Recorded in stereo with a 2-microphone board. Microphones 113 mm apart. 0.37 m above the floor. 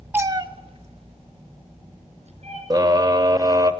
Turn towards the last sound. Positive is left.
turn(degrees=-35)  # may be behind; listen again after turning